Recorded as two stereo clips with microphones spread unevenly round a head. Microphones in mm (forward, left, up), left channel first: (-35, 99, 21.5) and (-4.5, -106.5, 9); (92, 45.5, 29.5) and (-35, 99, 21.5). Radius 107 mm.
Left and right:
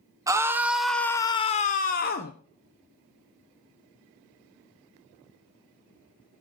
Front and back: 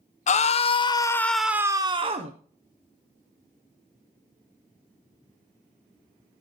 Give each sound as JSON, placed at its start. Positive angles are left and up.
{"t": 0.3, "sound": "a scream", "azimuth_deg": -5, "distance_m": 0.9}